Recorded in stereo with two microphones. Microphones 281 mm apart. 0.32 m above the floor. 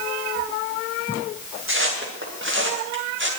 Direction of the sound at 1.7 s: 45° right (ahead or behind).